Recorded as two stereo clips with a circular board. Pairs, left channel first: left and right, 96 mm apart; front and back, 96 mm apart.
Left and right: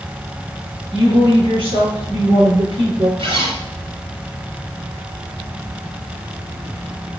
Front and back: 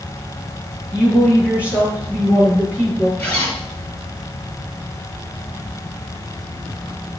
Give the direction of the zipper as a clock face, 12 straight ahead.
2 o'clock.